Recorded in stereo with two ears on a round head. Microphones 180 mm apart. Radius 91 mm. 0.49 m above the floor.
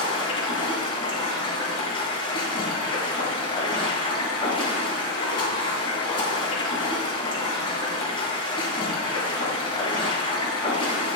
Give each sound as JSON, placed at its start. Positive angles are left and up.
{"t": 0.0, "sound": "running water", "side_deg": 25, "distance_m": 2.5}